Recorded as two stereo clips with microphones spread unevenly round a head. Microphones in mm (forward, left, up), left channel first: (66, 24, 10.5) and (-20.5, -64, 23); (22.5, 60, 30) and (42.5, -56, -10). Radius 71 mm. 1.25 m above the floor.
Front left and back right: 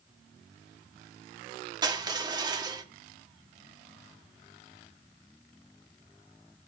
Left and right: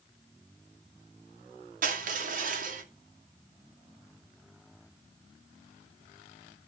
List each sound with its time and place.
1.8 s crushing: 75° right, 2 m